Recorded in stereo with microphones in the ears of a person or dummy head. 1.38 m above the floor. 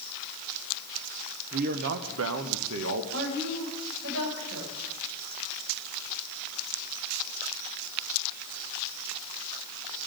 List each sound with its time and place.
1.5 s a man speaking: 50° right (ahead or behind), 0.7 m; by 3.0 s 75° right (ahead or behind), 1.2 m
3.1 s a woman speaking: 80° right, 6.5 m